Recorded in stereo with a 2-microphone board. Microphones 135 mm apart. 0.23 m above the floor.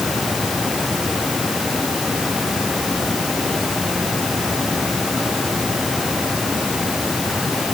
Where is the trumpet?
I don't hear a trumpet.